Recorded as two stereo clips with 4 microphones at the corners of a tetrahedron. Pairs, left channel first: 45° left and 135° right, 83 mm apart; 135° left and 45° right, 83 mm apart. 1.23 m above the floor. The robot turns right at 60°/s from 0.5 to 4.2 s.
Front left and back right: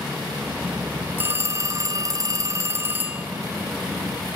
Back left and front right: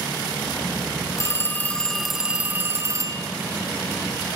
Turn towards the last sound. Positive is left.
turn(degrees=-5)